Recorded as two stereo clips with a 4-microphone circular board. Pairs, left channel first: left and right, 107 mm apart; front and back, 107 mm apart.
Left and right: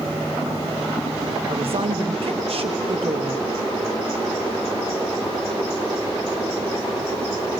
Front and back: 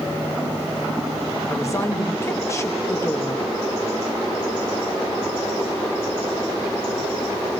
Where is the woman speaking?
65° right, 1.0 m.